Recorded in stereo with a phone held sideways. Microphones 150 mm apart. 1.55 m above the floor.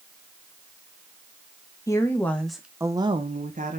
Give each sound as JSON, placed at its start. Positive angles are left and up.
{"t": 1.9, "sound": "a woman speaking", "side_deg": 20, "distance_m": 1.8}